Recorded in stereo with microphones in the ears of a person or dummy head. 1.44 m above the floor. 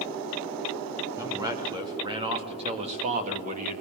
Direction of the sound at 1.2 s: 10° right (ahead or behind).